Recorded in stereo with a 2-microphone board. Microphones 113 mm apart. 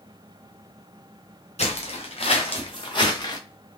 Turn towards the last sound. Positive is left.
turn(degrees=35)  # may be behind; listen again after turning